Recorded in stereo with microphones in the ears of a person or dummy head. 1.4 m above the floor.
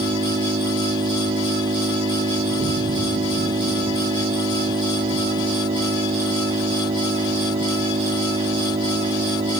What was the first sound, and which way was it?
An engine running, 25° right (ahead or behind).